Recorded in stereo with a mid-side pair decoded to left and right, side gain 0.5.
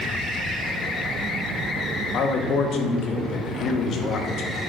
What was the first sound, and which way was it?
A man speaking, 60° left.